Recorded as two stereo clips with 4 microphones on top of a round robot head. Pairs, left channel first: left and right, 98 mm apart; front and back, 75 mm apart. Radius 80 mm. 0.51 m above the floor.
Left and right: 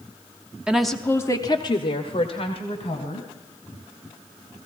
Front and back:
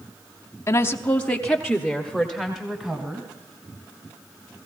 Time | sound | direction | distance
0.7 | a woman speaking | 15° right | 1.1 m